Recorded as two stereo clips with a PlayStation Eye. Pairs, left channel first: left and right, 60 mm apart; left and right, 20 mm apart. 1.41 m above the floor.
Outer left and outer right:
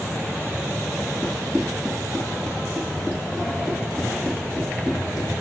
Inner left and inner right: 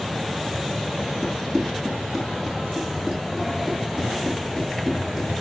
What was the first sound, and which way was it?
Running footsteps, 15° left (ahead or behind).